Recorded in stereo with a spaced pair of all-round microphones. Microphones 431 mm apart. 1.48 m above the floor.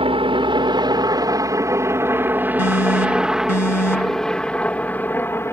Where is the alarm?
40° left (ahead or behind).